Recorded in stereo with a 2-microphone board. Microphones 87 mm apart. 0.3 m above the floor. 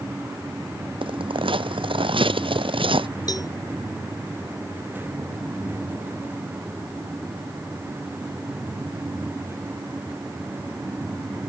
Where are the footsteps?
75° right (ahead or behind).